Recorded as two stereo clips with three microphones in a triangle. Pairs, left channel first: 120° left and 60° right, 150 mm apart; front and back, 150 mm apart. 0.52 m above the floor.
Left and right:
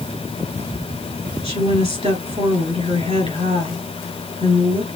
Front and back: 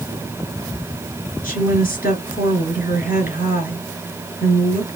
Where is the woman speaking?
15° right, 3.5 m.